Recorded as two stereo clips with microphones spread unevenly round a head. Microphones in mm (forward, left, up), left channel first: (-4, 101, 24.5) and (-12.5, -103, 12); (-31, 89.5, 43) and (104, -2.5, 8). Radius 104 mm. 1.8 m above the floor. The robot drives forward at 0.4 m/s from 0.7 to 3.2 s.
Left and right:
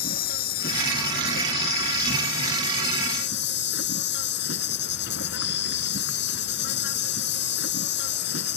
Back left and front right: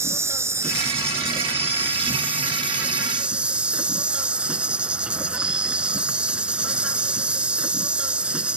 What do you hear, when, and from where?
0.0 s an insect: 45° left; by 8.6 s 55° left